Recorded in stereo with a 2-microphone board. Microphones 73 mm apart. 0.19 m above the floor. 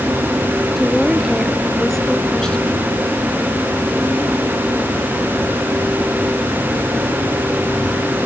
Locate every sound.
0.8 s a woman speaking: centre (ahead or behind); by 2.9 s 15° left (ahead or behind)